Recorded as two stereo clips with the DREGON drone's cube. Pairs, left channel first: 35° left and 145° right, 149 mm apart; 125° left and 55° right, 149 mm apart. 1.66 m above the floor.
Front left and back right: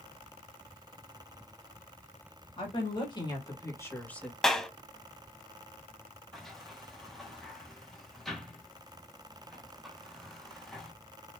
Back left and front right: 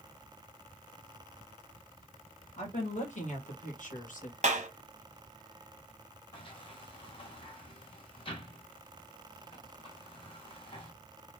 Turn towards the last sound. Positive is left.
turn(degrees=125)